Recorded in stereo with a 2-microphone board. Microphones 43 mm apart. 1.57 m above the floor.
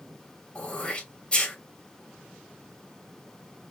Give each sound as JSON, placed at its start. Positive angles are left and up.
{"t": 0.6, "sound": "throat clearing", "side_deg": 25, "distance_m": 2.5}